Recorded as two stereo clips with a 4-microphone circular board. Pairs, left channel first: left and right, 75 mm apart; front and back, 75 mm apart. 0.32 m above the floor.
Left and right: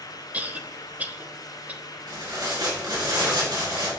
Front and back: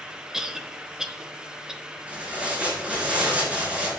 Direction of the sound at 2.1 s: 105° right.